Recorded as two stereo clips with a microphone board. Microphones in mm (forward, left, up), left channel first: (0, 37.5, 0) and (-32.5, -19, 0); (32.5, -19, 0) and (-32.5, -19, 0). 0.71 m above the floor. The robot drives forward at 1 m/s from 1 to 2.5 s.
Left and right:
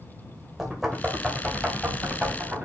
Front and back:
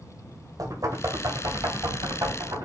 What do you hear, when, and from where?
0.6 s knocking: 155° left, 2 m; by 2.7 s 165° left, 3.5 m